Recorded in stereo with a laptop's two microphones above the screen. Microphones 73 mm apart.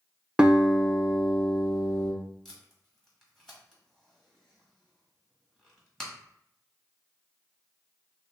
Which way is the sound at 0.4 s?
10° right (ahead or behind).